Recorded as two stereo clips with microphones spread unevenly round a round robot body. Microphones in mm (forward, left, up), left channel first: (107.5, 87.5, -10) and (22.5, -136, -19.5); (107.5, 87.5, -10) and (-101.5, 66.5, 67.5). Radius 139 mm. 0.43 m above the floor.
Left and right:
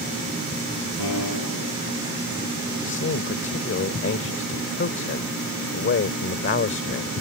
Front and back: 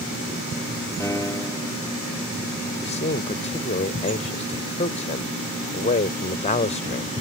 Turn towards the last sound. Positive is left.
turn(degrees=40)